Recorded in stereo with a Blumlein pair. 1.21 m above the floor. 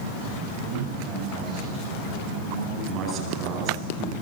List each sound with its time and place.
0.6 s a man speaking: 35° right, 9.5 m
2.9 s a man speaking: 30° right, 9 m